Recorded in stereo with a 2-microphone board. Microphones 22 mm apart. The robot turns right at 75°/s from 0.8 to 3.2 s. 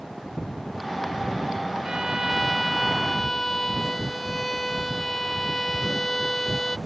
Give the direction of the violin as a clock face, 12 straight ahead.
2 o'clock.